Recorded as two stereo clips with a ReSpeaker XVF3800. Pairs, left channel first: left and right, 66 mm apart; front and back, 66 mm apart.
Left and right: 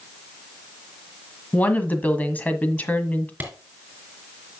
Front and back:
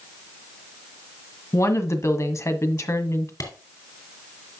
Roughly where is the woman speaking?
Ahead left.